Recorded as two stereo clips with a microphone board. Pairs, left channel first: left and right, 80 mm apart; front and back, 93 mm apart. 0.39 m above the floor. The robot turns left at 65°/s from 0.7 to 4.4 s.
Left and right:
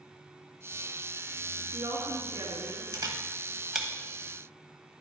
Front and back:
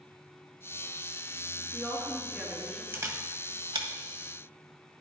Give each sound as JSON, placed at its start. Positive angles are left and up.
{"t": 1.6, "sound": "a woman speaking", "azimuth_deg": -60, "distance_m": 4.0}
{"t": 2.9, "sound": "a camera shutter", "azimuth_deg": -120, "distance_m": 1.1}